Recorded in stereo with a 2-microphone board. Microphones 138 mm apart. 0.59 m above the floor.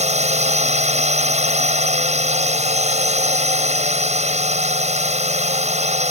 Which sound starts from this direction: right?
A drone, at 0.0 s.